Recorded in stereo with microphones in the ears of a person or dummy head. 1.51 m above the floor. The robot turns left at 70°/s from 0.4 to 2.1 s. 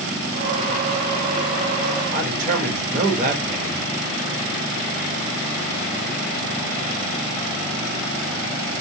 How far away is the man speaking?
About 1.1 m.